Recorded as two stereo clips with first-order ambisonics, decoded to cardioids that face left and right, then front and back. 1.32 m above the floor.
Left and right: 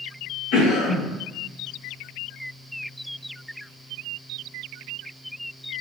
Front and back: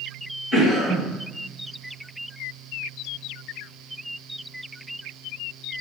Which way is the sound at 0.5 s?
80° left.